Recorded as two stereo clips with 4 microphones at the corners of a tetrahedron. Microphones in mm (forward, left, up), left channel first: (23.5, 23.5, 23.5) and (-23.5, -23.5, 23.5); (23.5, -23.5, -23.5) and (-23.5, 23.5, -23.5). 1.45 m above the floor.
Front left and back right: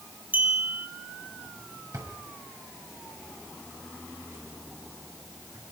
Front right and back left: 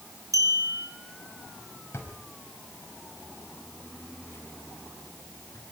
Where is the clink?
165° left, 4.5 m.